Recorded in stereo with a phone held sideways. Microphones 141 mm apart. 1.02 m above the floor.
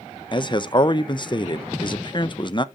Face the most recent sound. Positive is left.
turn(degrees=35)  # may be behind; listen again after turning